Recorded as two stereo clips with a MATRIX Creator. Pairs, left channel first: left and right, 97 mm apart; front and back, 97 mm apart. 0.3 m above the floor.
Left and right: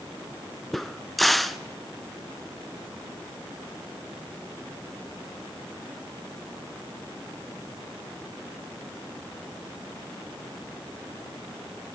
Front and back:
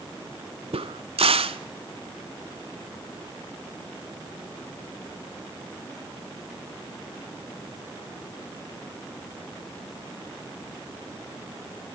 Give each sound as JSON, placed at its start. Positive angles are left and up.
{"t": 0.7, "sound": "a crack", "azimuth_deg": 180, "distance_m": 0.6}